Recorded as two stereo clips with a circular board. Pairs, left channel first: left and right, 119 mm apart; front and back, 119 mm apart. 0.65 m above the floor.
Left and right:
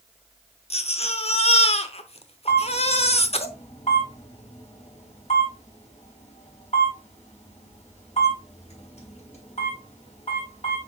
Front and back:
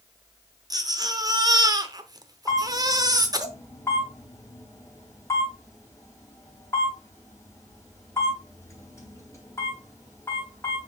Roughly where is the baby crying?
Behind left.